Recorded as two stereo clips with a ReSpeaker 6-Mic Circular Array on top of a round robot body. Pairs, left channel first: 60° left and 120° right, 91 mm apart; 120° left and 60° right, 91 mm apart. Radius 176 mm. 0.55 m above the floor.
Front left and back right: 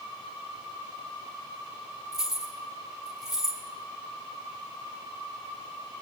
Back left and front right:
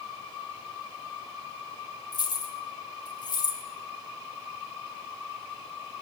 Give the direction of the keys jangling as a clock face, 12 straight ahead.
7 o'clock.